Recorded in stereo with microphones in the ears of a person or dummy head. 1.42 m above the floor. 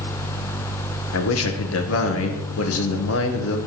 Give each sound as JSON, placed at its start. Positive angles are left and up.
{"t": 1.1, "sound": "a man speaking", "side_deg": 85, "distance_m": 1.2}